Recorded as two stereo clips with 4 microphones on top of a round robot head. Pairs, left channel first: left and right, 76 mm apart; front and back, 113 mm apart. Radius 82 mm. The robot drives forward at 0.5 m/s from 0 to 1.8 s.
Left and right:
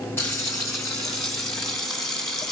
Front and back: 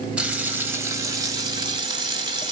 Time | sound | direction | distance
0.2 | frying | 110° left | 1.5 m